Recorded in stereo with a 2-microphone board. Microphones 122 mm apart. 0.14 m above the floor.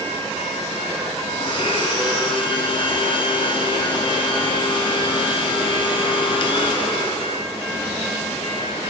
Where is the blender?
45° left (ahead or behind), 2 m.